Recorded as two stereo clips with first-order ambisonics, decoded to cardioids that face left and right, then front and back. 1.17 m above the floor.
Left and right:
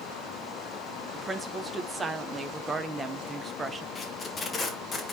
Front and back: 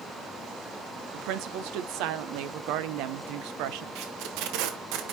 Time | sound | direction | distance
1.1 | a woman speaking | 170° right | 0.8 m
4.0 | tape being pulled | 160° left | 1.1 m